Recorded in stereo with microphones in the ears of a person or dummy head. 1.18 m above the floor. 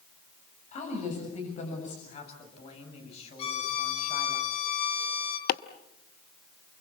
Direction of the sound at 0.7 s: 45° left (ahead or behind).